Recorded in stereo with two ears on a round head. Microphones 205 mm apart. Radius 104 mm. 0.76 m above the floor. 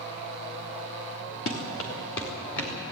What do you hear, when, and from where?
1.5 s running footsteps: 60° left (ahead or behind), 4 m; by 2.7 s 50° left (ahead or behind), 5.5 m